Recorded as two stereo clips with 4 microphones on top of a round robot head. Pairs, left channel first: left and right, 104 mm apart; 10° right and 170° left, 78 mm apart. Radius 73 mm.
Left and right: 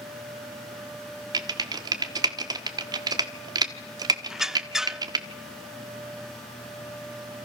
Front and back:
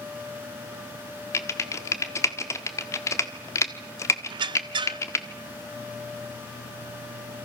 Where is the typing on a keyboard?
50° right, 1.4 m.